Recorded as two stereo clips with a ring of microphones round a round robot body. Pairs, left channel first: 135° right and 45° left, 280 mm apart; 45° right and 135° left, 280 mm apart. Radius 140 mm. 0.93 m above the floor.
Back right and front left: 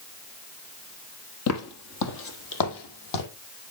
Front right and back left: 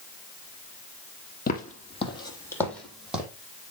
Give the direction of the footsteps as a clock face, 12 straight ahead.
3 o'clock.